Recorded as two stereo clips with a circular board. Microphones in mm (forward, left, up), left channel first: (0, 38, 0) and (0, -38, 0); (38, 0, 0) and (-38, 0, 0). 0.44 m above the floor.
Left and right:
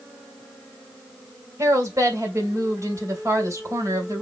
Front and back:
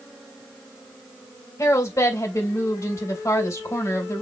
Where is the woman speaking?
45° right, 2.5 m.